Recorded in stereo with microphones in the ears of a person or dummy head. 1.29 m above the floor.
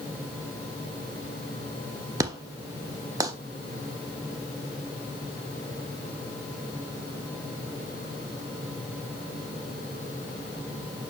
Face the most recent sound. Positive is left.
turn(degrees=-15)  # may be behind; listen again after turning